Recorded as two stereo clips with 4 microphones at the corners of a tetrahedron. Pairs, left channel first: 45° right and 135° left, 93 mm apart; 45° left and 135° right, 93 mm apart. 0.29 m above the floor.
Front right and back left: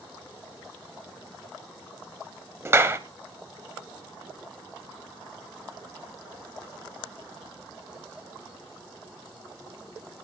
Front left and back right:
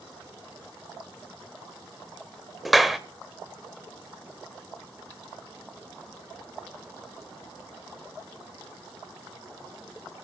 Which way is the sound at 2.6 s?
135° left.